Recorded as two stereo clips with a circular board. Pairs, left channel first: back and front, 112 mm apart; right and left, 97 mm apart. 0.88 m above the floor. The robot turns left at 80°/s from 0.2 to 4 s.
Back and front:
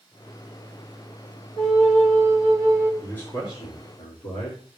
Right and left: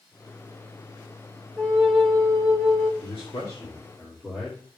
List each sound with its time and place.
1.6 s a flute: 35° left, 1.6 m; by 2.9 s 75° right, 1.6 m
3.0 s a man speaking: 95° right, 2 m; by 4.6 s 175° right, 2 m